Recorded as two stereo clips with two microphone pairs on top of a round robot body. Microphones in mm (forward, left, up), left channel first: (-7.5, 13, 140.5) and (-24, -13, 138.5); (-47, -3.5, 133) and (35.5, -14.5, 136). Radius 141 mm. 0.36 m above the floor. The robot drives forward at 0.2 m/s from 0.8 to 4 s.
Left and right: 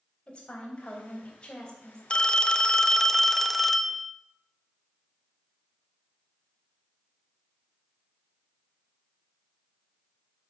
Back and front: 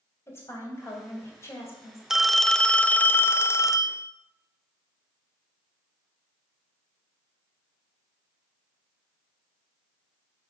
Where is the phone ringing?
75° left, 0.5 m; by 4.1 s 150° left, 0.6 m.